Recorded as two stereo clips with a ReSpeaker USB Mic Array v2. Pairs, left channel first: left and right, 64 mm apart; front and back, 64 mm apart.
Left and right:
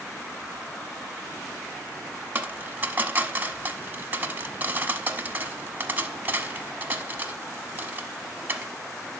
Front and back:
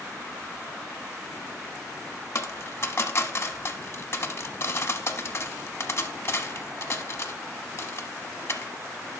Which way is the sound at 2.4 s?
35° right.